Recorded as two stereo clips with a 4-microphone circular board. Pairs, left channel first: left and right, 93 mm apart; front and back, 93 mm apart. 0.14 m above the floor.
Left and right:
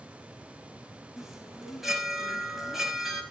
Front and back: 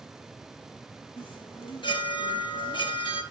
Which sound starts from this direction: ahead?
A chime, at 1.2 s.